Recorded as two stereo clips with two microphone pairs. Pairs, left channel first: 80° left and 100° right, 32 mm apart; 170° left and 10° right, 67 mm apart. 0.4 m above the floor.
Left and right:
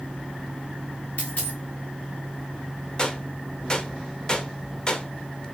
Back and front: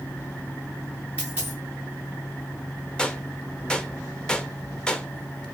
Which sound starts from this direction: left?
A gunshot, at 3.0 s.